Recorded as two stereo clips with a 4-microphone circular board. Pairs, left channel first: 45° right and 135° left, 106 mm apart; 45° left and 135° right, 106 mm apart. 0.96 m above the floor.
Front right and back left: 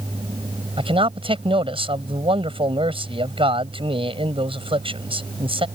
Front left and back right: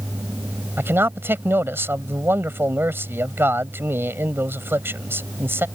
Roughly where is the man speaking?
Behind.